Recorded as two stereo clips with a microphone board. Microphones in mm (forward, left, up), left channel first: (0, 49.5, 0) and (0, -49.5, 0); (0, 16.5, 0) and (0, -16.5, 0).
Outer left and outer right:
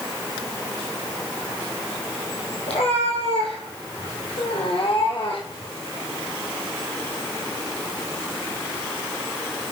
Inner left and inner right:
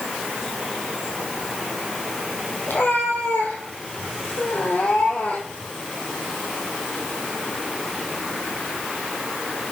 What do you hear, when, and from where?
2.7 s a cat meowing: 85° left, 4 m; by 5.7 s 55° left (ahead or behind), 3.5 m